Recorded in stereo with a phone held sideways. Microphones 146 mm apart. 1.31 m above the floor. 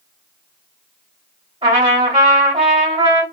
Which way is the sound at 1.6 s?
35° right (ahead or behind).